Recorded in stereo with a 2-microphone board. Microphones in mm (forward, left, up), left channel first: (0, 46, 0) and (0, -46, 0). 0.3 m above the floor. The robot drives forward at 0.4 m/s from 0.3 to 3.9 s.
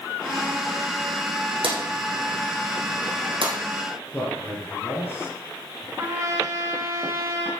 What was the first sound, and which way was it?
A drawer, 65° right (ahead or behind).